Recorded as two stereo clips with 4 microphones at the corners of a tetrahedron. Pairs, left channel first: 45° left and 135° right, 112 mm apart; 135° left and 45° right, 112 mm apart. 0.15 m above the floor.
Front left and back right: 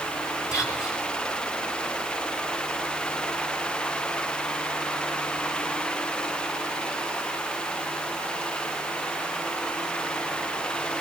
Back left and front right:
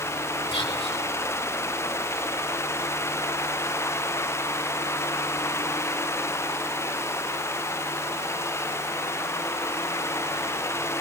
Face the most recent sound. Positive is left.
turn(degrees=105)